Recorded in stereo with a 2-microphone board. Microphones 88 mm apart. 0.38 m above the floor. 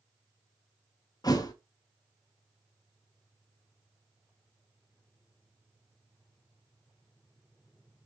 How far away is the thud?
About 0.7 m.